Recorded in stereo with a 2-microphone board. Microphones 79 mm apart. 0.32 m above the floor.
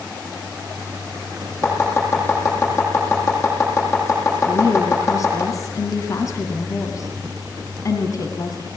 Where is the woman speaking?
45° left (ahead or behind), 2.5 m.